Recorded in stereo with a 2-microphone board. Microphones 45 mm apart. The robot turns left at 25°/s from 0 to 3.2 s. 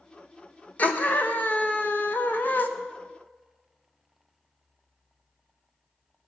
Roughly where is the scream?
Behind left.